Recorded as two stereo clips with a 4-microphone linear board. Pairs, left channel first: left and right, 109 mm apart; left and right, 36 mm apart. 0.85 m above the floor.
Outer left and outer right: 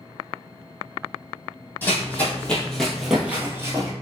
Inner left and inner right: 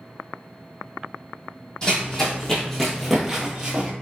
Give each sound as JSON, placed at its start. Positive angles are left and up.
{"t": 1.8, "sound": "running footsteps", "side_deg": 20, "distance_m": 1.6}